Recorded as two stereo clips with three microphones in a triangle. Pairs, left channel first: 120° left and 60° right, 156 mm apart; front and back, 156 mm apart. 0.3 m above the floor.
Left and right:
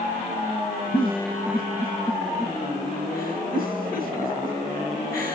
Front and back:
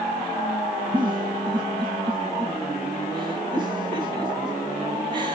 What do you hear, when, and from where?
0.9 s a giggle: 120° left, 3 m